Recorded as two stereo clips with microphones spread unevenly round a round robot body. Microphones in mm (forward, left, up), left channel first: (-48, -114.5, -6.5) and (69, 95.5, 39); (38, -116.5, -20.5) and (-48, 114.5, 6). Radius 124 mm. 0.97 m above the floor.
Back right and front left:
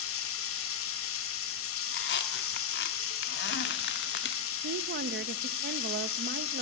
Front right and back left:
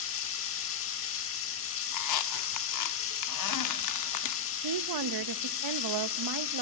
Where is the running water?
100° right, 1.3 m.